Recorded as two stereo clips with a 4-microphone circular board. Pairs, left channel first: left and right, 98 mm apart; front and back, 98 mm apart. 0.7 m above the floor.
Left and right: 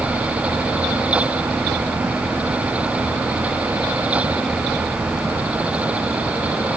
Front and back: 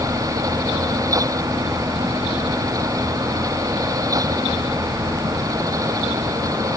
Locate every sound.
Only background noise.